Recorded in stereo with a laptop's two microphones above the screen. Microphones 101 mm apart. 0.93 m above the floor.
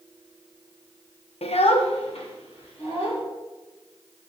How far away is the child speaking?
About 0.5 m.